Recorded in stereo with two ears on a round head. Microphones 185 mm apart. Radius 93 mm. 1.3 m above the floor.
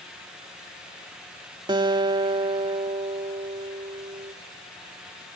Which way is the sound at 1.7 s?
20° right (ahead or behind).